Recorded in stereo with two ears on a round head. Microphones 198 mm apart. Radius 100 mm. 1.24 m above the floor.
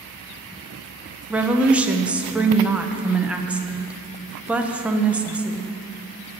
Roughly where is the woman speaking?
Centre.